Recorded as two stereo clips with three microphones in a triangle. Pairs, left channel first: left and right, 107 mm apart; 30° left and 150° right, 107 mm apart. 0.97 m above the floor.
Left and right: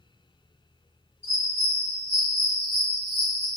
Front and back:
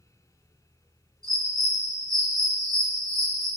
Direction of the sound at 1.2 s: 95° right.